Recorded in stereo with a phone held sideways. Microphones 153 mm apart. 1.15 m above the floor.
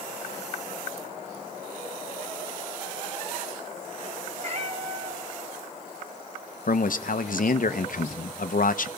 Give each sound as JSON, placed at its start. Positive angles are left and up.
{"t": 4.4, "sound": "a cat meowing", "side_deg": -50, "distance_m": 3.5}
{"t": 6.7, "sound": "a man speaking", "side_deg": 65, "distance_m": 0.8}